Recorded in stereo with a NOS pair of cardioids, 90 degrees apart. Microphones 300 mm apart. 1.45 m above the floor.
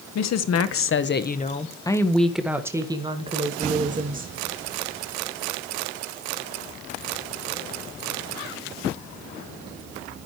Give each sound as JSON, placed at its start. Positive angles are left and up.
{"t": 0.1, "sound": "a woman speaking", "azimuth_deg": 65, "distance_m": 1.6}